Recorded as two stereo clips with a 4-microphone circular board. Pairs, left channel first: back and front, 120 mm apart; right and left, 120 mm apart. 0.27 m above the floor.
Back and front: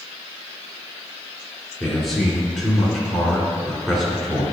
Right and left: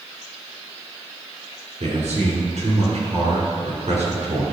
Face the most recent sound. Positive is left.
turn(degrees=90)